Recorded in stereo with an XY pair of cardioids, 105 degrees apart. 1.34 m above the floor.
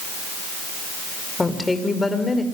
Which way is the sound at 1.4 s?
15° left.